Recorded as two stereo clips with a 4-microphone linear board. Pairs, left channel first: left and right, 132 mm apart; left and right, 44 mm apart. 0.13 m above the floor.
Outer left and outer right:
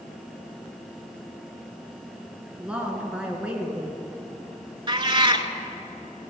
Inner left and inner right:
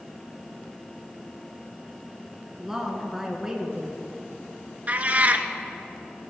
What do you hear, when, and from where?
2.6 s a woman speaking: 10° right (ahead or behind), 1.8 m
4.9 s a cat meowing: 40° right (ahead or behind), 0.6 m